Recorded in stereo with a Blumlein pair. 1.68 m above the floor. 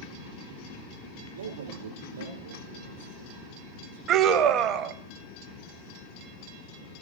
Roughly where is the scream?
Ahead right.